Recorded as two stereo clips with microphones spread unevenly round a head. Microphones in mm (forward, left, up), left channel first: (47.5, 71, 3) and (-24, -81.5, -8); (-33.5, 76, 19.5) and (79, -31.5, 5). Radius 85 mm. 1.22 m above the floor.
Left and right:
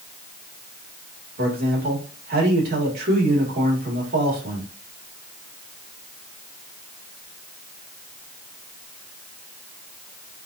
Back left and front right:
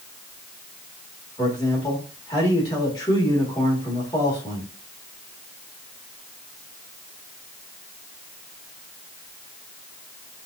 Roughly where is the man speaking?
Behind right.